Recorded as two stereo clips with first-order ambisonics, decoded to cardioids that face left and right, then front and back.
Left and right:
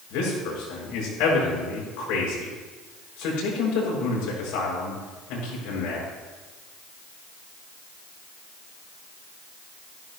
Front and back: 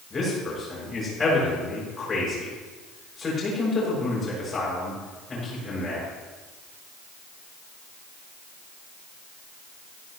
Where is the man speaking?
75° left, 6.5 m.